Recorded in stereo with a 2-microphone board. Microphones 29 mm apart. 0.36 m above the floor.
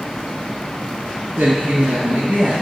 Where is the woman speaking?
70° right (ahead or behind), 2.5 m; by 2.5 s 60° right (ahead or behind), 2.0 m.